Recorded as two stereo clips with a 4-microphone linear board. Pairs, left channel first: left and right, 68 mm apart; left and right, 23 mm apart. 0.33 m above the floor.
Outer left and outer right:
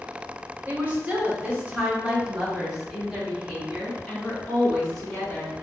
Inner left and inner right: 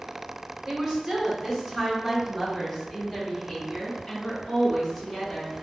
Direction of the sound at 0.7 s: 30° right (ahead or behind).